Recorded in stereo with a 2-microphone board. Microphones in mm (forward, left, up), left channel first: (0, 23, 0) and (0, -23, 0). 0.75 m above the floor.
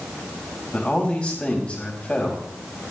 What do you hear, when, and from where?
0.7 s a man speaking: 35° left (ahead or behind), 5 m